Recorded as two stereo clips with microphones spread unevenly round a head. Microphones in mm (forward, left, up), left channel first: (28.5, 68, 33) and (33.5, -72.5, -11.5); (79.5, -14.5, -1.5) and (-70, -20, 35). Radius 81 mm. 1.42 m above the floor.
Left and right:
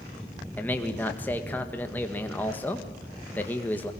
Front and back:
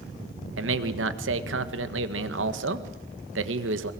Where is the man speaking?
175° left, 1.7 m.